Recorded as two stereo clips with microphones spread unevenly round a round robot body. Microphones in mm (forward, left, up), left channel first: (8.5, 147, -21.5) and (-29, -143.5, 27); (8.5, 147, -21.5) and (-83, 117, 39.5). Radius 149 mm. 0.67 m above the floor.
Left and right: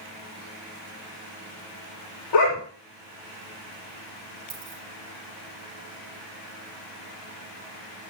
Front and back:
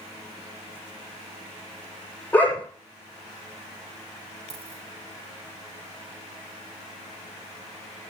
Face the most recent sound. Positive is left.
turn(degrees=-160)